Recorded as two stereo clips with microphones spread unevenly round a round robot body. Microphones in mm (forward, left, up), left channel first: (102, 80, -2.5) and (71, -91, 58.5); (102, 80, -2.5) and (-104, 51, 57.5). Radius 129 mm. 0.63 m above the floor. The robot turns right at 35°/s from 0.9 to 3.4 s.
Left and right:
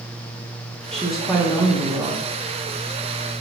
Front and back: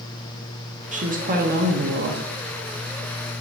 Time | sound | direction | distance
0.9 | a woman speaking | 135° left | 1.4 m